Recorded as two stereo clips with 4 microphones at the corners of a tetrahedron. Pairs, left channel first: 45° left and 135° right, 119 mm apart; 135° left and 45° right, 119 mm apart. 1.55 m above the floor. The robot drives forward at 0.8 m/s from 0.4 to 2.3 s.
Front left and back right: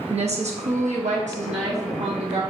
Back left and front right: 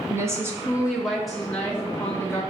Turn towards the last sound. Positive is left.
turn(degrees=-150)